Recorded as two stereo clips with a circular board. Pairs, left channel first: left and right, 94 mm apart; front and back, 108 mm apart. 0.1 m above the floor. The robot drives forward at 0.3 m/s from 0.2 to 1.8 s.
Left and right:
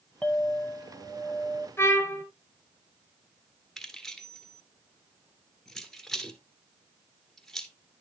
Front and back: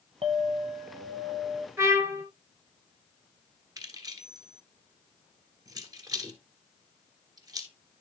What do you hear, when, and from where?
0.2 s a clink: 165° left, 1.7 m; by 1.7 s 170° left, 2 m
1.8 s a trumpet: 135° left, 1.6 m
3.8 s keys jangling: 175° left, 1.3 m